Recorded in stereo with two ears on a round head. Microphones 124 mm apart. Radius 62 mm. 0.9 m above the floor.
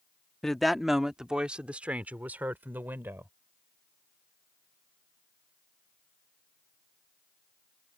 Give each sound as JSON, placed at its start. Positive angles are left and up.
{"t": 0.4, "sound": "a woman speaking", "side_deg": 5}